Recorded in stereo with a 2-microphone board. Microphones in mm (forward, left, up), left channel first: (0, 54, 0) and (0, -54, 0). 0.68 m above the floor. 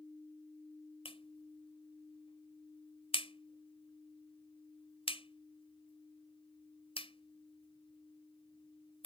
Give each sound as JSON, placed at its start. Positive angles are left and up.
{"t": 1.1, "sound": "a clap", "side_deg": 60}